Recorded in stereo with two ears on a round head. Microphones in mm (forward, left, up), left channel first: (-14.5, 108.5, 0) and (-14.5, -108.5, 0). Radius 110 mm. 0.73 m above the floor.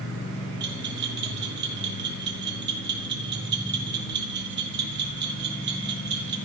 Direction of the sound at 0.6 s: 45° right (ahead or behind).